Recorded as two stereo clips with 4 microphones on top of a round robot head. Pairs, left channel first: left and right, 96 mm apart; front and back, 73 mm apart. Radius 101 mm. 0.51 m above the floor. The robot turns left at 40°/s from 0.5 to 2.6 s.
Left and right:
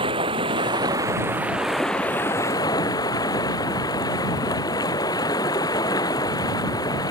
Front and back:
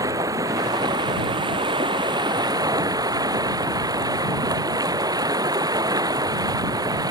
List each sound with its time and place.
0.0 s running water: 130° right; by 7.1 s 145° left